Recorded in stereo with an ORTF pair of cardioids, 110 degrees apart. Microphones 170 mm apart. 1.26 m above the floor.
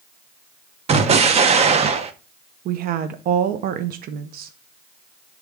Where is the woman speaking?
60° right, 0.7 m.